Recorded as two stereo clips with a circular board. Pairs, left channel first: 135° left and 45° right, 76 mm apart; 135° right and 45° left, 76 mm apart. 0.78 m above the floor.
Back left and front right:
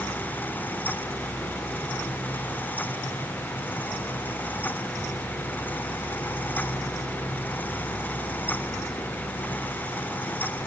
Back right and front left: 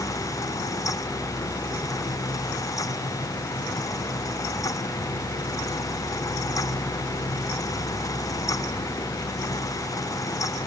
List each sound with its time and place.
Only background noise.